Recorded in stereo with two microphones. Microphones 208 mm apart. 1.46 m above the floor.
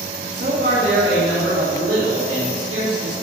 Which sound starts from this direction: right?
A man speaking, at 0.3 s.